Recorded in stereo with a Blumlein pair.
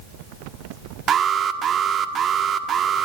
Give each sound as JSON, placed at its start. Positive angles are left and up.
{"t": 1.1, "sound": "an alarm", "azimuth_deg": -25, "distance_m": 1.9}